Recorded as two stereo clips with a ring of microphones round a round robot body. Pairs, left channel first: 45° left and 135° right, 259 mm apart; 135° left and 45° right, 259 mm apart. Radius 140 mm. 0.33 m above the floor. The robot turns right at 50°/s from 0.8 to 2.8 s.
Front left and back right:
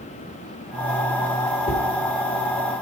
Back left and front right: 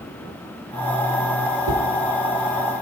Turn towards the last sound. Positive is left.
turn(degrees=45)